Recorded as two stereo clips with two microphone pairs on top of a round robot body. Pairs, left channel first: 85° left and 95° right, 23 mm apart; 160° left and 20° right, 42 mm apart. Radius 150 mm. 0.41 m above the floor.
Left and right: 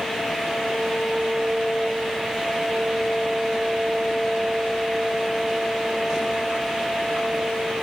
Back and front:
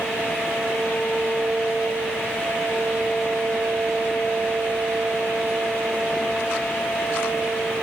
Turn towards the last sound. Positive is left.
No sound to turn to.